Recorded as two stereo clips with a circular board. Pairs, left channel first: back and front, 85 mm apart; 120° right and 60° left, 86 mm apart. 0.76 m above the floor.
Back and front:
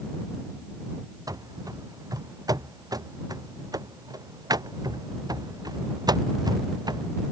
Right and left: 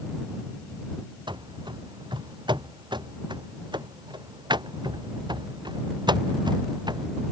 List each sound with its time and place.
1.3 s running footsteps: 40° left; by 7.1 s 35° left